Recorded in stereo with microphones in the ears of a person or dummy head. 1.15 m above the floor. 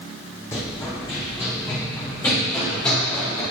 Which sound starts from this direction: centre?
Running footsteps, at 0.5 s.